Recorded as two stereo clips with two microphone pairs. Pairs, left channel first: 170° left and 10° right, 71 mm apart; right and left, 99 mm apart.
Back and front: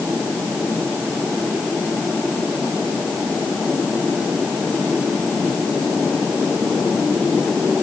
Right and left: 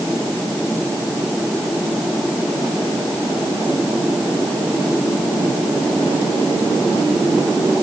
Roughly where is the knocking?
I don't hear knocking.